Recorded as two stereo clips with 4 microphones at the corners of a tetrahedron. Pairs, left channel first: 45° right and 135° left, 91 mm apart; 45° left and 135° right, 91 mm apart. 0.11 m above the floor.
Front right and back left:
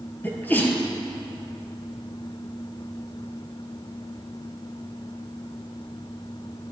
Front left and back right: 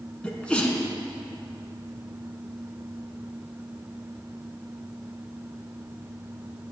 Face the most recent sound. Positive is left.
turn(degrees=-15)